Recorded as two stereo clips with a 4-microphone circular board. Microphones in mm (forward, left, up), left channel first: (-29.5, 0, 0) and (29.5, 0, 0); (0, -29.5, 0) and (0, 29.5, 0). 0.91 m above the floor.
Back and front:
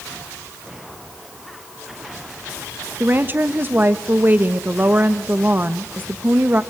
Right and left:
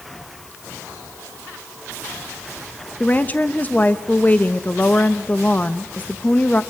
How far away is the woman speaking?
About 1.0 m.